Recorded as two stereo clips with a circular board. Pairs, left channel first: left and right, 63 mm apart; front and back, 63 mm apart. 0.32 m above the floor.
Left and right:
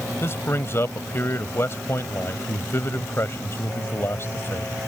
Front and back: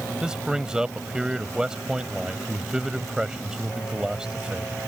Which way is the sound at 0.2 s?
105° left.